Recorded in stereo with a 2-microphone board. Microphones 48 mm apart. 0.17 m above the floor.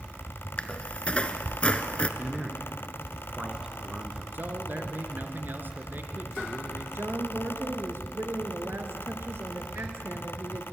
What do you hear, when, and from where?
0.6 s a squeak: 25° left (ahead or behind), 1.2 m
2.2 s a man speaking: 20° right (ahead or behind), 2.5 m
4.3 s a man speaking: 45° right (ahead or behind), 3 m
7.0 s a woman speaking: 60° right (ahead or behind), 3 m